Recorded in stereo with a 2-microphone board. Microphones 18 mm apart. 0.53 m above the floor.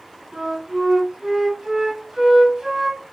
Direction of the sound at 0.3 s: 45° right (ahead or behind).